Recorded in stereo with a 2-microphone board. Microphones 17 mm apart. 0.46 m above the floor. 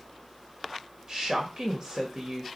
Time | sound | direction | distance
1.1 | a woman speaking | 35° right (ahead or behind) | 2.0 m